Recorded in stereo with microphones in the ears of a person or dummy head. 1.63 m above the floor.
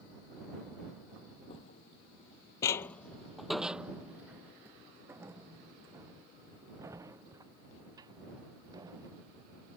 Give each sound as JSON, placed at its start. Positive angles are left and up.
{"t": 1.5, "sound": "footsteps", "side_deg": 30}